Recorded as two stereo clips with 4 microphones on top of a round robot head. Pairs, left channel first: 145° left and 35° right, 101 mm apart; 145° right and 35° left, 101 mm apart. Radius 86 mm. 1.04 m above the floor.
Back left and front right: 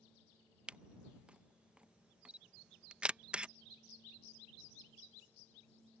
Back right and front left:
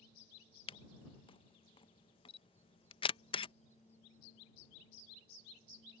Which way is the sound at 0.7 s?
115° right.